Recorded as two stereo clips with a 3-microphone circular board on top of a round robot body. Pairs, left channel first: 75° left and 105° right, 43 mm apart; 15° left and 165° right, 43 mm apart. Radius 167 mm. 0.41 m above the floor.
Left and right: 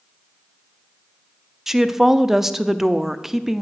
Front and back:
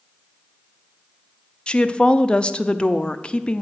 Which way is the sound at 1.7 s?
30° right.